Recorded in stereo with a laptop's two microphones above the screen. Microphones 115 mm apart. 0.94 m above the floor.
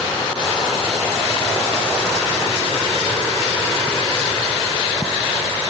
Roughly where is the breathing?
No breathing in this recording.